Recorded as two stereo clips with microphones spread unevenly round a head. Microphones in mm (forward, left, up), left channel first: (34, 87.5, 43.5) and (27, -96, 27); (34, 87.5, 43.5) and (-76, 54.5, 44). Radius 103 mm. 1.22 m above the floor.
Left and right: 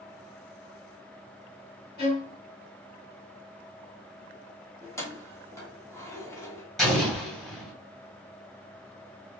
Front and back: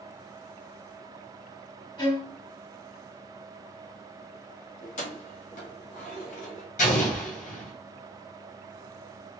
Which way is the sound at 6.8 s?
5° left.